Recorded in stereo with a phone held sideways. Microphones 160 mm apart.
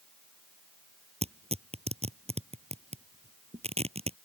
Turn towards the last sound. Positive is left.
turn(degrees=-40)  # may be behind; listen again after turning